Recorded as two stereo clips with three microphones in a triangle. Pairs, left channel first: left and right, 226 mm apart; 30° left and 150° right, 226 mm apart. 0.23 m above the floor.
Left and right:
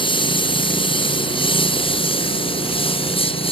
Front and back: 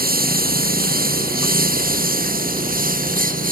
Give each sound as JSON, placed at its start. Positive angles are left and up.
{"t": 0.0, "sound": "a lawn mower", "azimuth_deg": 160}